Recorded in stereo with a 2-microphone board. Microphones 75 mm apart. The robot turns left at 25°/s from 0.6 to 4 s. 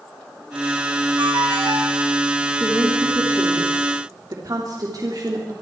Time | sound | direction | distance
1.2 | a ringtone | 75° right (ahead or behind) | 4.5 m
2.6 | a woman speaking | 20° right | 3 m